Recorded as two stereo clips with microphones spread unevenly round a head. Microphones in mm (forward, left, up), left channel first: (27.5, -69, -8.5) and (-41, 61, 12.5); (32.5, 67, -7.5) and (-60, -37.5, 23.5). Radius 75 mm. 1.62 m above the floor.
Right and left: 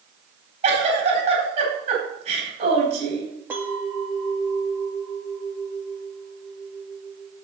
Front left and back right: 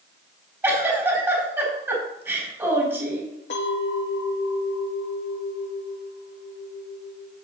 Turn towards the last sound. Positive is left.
turn(degrees=45)